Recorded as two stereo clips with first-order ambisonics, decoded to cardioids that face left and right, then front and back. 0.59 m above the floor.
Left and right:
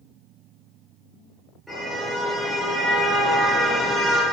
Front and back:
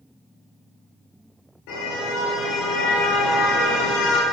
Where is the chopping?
I don't hear chopping.